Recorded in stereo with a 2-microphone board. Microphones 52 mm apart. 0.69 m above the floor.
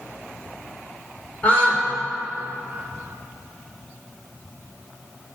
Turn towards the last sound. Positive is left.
turn(degrees=25)  # may be behind; listen again after turning